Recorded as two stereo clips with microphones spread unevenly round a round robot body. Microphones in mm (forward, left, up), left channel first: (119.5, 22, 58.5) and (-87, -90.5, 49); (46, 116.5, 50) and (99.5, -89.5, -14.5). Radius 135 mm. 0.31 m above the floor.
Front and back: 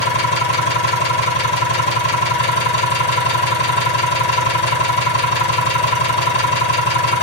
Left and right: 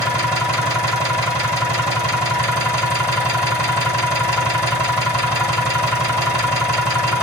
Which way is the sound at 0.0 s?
10° left.